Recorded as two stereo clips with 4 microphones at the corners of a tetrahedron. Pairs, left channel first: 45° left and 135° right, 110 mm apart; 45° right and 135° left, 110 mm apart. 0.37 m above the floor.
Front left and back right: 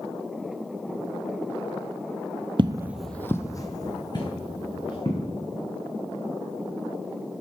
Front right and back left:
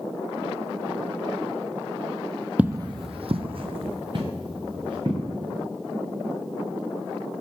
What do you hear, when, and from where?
2.6 s footsteps: 150° right, 0.5 m; by 5.3 s 90° left, 3 m